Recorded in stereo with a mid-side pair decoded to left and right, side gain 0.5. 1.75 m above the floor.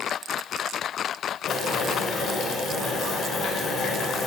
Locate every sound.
1.5 s boiling: 65° left, 1.1 m